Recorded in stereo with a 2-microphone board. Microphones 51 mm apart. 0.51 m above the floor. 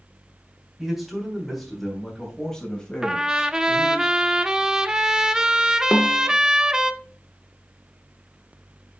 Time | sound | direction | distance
0.8 | a man speaking | 5° right (ahead or behind) | 3 m
3.0 | a trumpet | 10° right (ahead or behind) | 0.6 m
5.9 | a snare drum | 20° left (ahead or behind) | 0.8 m